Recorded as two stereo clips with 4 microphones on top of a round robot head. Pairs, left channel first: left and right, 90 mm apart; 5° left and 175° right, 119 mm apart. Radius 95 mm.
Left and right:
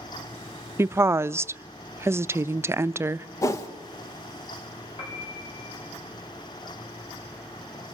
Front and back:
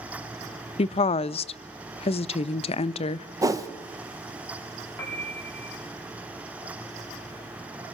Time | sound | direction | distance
0.8 | a woman speaking | 25° right | 0.5 m
3.4 | a whoosh | 135° left | 1.3 m
5.0 | a piano | 70° left | 5.5 m